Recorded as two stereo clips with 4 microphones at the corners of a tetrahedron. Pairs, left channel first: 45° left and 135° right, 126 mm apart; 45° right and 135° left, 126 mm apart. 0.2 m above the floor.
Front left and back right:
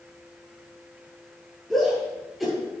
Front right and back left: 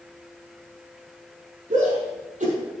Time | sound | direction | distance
1.7 | a shout | 135° left | 5.5 m